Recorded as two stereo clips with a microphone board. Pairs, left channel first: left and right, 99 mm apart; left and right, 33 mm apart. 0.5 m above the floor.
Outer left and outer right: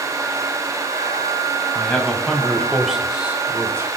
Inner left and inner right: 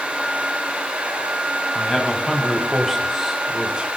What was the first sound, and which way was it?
A man speaking, 10° left (ahead or behind).